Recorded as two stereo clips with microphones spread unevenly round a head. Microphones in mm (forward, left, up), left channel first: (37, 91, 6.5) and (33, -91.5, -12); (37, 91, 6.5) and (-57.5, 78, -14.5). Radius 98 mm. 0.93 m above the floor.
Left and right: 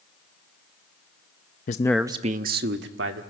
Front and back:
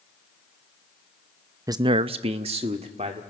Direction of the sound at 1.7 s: 140° left.